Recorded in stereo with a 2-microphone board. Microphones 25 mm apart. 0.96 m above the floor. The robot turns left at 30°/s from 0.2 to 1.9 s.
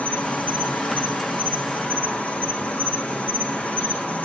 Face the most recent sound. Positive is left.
turn(degrees=70)